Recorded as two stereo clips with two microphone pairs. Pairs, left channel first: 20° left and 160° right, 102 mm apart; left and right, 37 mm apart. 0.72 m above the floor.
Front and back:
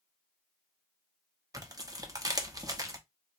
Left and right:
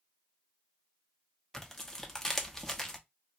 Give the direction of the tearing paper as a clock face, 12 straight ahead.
7 o'clock.